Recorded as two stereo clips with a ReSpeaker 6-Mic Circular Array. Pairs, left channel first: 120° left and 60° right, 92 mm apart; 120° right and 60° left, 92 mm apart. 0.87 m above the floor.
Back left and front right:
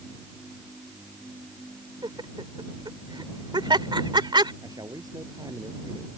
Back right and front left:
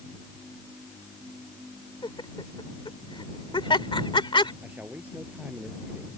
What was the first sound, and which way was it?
Laughter, 95° right.